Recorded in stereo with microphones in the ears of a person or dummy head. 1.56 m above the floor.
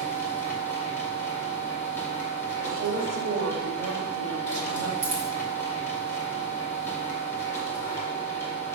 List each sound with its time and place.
0.0 s a machine running: 15° left (ahead or behind), 1.5 m
2.6 s a woman speaking: 75° right (ahead or behind), 1.5 m
5.0 s a dropped coin: 30° right (ahead or behind), 1.6 m